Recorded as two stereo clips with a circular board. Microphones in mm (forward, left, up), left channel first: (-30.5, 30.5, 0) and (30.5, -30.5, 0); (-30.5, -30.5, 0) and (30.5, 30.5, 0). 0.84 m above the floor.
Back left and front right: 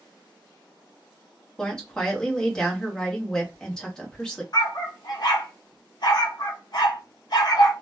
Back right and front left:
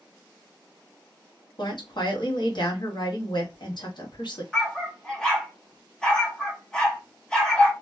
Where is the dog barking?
145° left, 0.8 m.